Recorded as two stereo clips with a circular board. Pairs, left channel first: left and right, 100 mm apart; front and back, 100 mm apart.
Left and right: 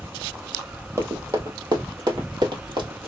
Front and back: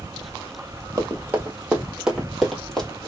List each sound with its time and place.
1.0 s running footsteps: 130° right, 1.8 m; by 3.1 s 80° right, 2 m